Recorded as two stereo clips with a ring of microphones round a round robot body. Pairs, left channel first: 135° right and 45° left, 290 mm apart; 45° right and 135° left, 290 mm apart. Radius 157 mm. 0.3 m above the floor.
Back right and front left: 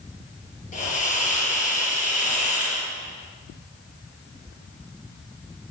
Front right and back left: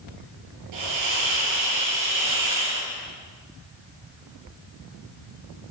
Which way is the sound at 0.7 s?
160° left.